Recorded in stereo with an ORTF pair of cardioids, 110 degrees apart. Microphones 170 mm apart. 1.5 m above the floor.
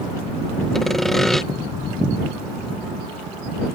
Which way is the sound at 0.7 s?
Straight ahead.